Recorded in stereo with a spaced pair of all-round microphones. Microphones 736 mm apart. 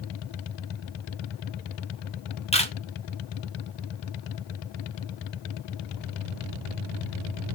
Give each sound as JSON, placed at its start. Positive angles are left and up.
{"t": 2.5, "sound": "a camera shutter", "side_deg": 10, "distance_m": 0.7}